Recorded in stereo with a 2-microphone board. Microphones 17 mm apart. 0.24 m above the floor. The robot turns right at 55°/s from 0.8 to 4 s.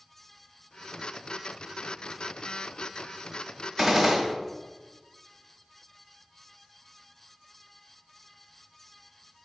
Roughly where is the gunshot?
Right.